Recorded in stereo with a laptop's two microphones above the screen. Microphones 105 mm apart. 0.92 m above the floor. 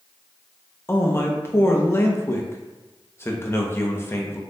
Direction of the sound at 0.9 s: 25° left (ahead or behind).